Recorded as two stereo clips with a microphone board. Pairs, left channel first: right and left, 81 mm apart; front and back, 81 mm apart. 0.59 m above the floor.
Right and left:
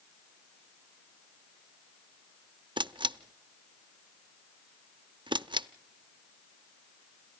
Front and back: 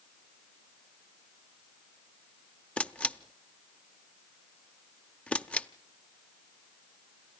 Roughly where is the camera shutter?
Left.